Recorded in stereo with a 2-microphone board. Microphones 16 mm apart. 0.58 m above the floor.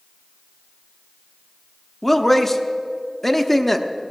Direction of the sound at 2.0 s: 20° left (ahead or behind).